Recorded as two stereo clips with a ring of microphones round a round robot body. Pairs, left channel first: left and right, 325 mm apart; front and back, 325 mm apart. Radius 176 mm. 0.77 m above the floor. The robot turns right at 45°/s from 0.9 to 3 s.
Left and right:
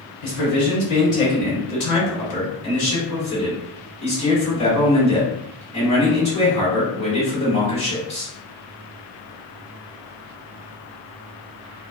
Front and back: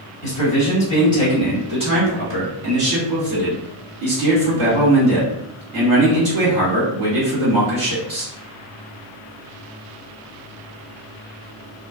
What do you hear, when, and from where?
0.2 s a man speaking: 65° left, 1.8 m; by 8.3 s 160° left, 1.8 m